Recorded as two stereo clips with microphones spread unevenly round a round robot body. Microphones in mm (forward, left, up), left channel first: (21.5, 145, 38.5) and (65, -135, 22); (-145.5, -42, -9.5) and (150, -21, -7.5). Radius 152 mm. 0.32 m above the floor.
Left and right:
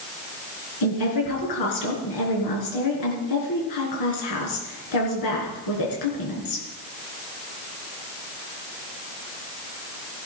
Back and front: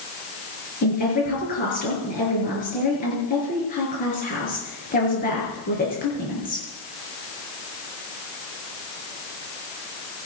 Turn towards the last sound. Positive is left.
turn(degrees=120)